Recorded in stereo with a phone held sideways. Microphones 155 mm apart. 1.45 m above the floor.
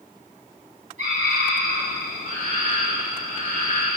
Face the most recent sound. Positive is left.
turn(degrees=-50)  # may be behind; listen again after turning